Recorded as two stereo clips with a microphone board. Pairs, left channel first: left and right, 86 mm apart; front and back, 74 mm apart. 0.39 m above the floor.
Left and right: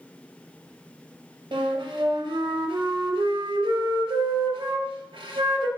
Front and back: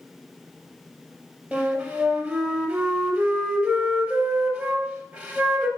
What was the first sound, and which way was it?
A flute, 110° right.